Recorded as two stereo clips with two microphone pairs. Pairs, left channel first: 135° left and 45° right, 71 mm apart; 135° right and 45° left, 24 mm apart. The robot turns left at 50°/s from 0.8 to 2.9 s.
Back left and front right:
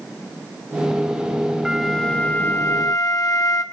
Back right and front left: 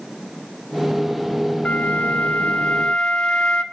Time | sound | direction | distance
1.6 | a flute | 125° right | 0.9 m